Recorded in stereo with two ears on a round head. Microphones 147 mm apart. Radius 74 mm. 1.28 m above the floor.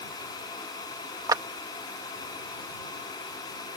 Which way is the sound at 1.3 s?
25° right (ahead or behind).